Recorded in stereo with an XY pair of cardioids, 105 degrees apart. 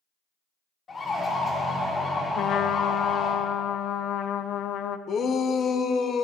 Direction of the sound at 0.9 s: 40° left.